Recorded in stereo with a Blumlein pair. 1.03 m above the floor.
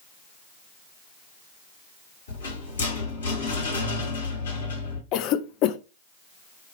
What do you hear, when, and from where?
2.3 s a rattle: 70° left, 2.0 m
5.1 s a cough: 40° left, 0.5 m